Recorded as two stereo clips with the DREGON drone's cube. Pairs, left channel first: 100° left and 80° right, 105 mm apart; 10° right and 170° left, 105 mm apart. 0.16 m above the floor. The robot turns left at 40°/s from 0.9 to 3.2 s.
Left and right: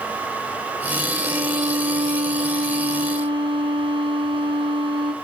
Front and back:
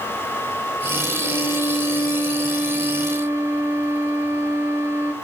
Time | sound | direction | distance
1.2 | a violin | 40° right | 0.9 m